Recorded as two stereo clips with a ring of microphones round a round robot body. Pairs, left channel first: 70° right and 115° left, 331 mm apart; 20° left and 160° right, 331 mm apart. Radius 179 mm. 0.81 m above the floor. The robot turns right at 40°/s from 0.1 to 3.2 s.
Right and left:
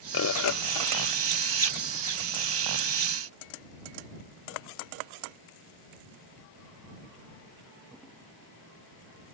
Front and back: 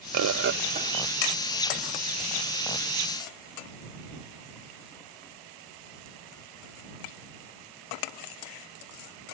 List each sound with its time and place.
0.1 s a bird: 115° right; by 1.1 s 80° right